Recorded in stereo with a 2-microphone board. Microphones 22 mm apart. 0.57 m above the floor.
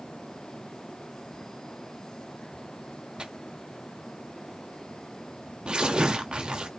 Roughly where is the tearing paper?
Right.